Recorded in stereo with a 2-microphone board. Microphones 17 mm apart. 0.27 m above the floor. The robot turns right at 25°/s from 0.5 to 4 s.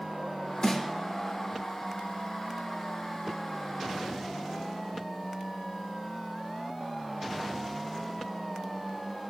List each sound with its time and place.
0.6 s a snare drum: 60° left (ahead or behind), 6 m; by 0.8 s 55° left (ahead or behind), 6 m